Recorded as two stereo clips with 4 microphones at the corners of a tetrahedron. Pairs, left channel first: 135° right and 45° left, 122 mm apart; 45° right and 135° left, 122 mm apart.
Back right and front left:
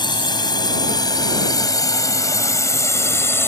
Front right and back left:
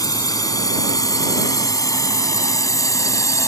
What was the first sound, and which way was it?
A drone, 95° right.